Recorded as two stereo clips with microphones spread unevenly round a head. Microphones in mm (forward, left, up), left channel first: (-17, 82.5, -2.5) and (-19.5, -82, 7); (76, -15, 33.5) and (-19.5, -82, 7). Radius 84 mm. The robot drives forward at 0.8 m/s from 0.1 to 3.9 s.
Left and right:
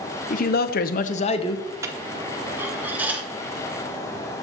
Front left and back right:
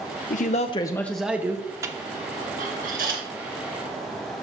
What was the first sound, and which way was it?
A man speaking, 55° left.